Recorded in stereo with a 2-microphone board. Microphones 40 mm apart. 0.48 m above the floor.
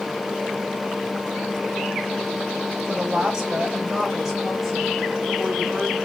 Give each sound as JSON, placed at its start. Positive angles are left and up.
{"t": 2.9, "sound": "a woman speaking", "side_deg": -25, "distance_m": 1.8}